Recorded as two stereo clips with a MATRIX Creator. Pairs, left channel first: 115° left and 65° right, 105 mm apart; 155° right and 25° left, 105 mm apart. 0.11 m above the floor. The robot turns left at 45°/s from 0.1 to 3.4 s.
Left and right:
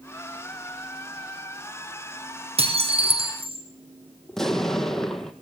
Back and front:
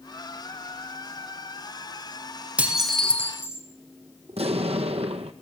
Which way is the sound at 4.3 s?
30° left.